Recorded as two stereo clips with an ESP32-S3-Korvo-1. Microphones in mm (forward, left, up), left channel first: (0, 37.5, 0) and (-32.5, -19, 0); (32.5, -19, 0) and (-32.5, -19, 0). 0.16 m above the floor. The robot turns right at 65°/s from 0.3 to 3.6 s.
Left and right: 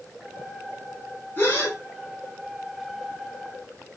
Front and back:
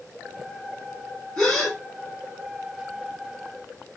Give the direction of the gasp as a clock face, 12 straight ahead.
10 o'clock.